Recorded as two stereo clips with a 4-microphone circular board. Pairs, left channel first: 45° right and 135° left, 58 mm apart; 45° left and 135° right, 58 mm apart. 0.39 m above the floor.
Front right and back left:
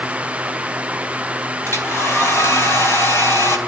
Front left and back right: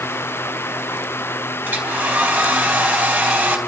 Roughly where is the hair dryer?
Right.